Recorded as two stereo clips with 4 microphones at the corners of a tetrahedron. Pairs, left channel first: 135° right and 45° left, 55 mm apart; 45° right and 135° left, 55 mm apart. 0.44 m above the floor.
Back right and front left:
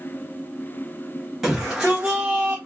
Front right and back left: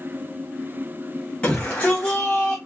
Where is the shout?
30° right, 1.2 m; by 2.6 s 10° right, 1.5 m.